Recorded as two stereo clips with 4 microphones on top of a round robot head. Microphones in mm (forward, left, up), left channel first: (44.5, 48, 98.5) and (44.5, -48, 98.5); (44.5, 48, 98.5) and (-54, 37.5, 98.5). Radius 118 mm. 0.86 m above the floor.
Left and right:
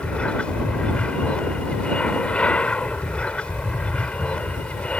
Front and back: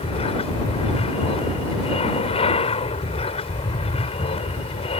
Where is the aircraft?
10° left.